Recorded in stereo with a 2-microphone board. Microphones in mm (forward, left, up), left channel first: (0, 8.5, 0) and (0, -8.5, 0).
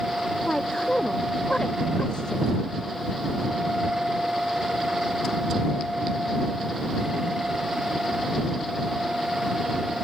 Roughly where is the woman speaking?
Left.